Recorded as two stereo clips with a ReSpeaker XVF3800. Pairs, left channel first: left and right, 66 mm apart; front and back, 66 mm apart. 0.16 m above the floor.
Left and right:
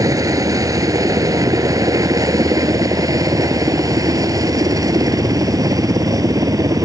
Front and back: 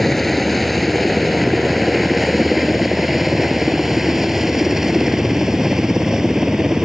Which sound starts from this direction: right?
A helicopter, at 0.0 s.